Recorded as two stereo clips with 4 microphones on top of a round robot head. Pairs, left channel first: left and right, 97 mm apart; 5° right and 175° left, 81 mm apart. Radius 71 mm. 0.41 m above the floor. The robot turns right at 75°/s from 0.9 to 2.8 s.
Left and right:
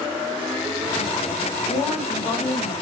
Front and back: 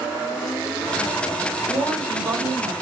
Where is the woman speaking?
60° left, 1.9 m; by 2.7 s 140° left, 1.9 m.